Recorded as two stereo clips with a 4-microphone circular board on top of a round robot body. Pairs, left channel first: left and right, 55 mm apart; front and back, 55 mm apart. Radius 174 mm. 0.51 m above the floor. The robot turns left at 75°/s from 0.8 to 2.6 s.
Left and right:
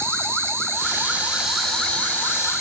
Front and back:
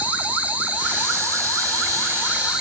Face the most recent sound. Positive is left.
turn(degrees=105)